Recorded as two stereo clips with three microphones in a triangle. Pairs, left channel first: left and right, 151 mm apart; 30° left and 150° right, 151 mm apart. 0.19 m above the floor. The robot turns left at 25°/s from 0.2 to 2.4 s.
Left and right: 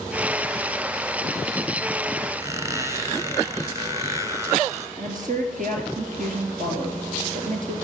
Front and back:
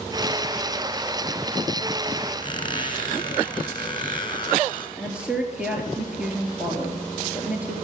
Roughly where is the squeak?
Ahead right.